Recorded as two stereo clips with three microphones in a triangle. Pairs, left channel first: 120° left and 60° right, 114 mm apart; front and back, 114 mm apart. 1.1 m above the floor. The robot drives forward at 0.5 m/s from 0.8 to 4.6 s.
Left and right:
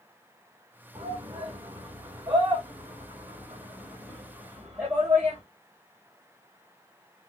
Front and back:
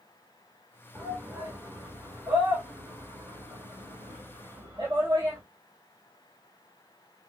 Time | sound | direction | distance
0.9 | a shout | 110° right | 3.5 m